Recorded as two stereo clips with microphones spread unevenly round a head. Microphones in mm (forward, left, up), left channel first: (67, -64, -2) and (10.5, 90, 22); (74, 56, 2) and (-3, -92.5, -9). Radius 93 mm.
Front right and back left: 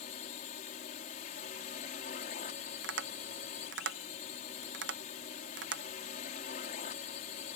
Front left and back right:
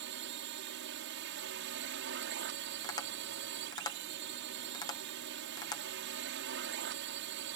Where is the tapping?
130° left.